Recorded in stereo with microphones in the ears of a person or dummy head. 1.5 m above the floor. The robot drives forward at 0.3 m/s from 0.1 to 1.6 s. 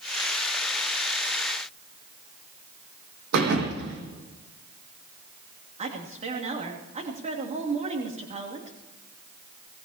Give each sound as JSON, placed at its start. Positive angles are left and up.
{"t": 3.3, "sound": "a thud", "side_deg": -60, "distance_m": 5.0}
{"t": 5.8, "sound": "a woman speaking", "side_deg": -35, "distance_m": 3.0}